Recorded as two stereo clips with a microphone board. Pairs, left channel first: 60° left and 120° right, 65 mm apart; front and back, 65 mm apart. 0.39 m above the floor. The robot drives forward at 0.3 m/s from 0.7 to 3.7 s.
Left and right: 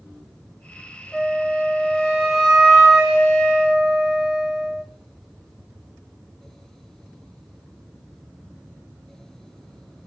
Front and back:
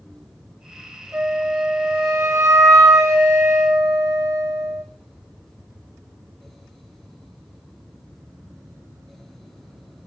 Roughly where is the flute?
Behind left.